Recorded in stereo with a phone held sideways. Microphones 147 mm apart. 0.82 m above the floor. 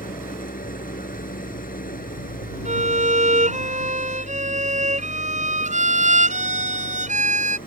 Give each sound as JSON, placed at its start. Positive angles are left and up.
{"t": 0.0, "sound": "an engine running", "side_deg": 80}
{"t": 2.6, "sound": "a violin", "side_deg": -60}